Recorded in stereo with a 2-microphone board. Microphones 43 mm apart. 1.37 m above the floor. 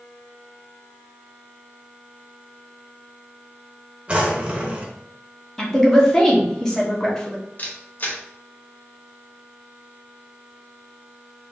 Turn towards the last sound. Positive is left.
turn(degrees=40)  # may be behind; listen again after turning